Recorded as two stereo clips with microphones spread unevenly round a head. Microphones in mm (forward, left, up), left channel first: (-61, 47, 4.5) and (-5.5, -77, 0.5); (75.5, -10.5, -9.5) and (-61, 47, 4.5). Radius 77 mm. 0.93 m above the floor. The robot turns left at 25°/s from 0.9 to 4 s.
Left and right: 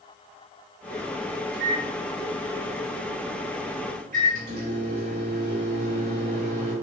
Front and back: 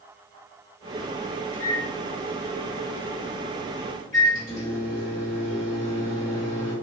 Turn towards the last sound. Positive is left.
turn(degrees=-90)